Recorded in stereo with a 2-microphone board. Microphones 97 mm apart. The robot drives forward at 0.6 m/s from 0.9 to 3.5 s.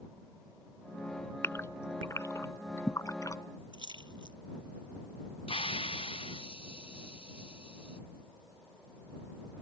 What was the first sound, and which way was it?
A gasp, 25° left (ahead or behind).